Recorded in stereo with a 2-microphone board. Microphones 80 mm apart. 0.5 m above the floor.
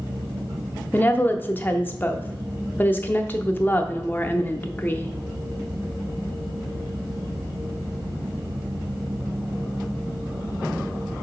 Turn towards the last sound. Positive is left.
turn(degrees=25)  # may be behind; listen again after turning